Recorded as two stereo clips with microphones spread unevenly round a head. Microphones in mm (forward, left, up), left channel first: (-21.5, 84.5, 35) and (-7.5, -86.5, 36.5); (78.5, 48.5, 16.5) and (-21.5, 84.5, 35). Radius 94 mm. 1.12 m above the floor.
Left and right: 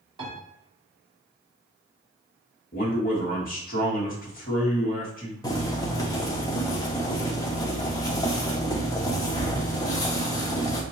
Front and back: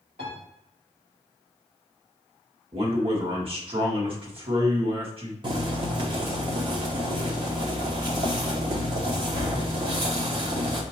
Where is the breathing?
I don't hear breathing.